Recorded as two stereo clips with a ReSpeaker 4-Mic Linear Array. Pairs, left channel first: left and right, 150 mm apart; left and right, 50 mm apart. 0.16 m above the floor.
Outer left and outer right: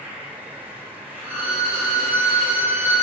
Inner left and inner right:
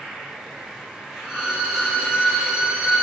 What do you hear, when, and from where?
0.0 s an insect: 10° right (ahead or behind), 1.8 m
1.2 s a violin: 15° right (ahead or behind), 1.4 m